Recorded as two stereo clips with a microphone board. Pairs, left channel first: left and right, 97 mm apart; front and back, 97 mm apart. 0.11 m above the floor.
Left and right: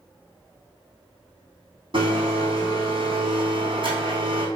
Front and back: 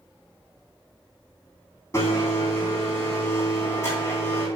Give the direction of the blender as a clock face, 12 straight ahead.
2 o'clock.